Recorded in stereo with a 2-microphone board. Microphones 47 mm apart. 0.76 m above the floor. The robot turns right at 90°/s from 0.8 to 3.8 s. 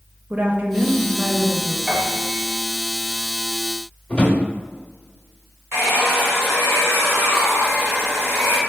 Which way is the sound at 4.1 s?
25° left (ahead or behind).